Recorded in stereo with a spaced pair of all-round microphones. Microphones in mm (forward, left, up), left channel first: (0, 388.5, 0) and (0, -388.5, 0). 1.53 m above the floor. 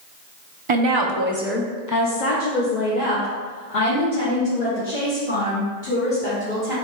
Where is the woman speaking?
45° right (ahead or behind), 0.7 m; by 6.8 s 85° left, 3 m.